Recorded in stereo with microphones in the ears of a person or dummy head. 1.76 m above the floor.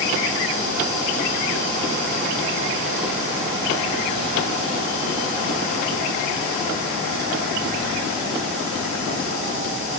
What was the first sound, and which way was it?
Only background noise.